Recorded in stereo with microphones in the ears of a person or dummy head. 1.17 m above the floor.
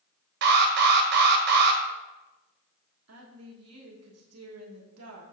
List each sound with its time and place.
0.4 s an alarm: 60° right (ahead or behind), 1.4 m
3.1 s a woman speaking: 80° right, 1.3 m